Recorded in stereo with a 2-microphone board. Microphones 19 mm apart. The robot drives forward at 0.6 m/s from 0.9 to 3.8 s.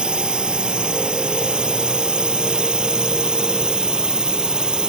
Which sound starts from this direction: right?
A drone, at 0.0 s.